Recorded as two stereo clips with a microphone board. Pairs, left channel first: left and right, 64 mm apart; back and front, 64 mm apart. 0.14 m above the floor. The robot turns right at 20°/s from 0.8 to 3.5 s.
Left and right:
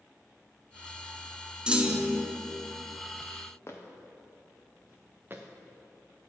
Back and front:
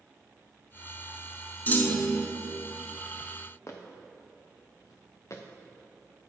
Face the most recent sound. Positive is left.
turn(degrees=-140)